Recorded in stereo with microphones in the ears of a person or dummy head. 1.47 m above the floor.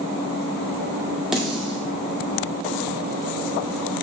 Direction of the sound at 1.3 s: Centre (ahead or behind).